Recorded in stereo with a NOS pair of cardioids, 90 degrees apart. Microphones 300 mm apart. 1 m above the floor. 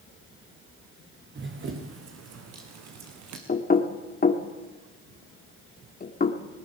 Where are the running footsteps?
40° right, 3.5 m; by 3.4 s 75° right, 3.5 m.